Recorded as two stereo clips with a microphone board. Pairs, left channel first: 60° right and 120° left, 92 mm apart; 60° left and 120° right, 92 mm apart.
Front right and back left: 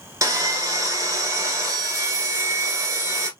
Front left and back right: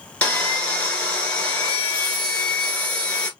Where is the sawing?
125° left, 1.2 m.